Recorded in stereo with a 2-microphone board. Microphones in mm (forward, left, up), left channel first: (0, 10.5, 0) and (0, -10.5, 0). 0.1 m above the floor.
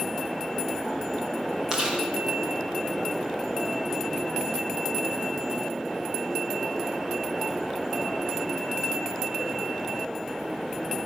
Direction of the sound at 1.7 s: 25° right (ahead or behind).